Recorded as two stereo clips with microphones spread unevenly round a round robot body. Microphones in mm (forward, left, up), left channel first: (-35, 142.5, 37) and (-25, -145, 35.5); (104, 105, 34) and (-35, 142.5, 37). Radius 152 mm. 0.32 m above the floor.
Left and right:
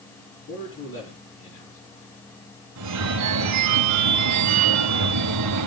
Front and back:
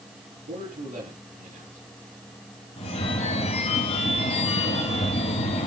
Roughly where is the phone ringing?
Ahead right.